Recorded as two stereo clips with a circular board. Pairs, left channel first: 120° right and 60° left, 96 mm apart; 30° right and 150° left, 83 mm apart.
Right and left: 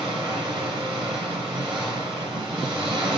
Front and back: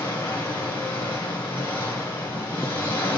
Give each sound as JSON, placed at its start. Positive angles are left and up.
{"t": 0.0, "sound": "an engine running", "azimuth_deg": 35, "distance_m": 5.0}